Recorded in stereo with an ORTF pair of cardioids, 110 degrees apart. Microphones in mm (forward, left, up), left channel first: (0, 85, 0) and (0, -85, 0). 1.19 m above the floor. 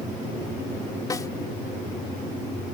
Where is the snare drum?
20° left.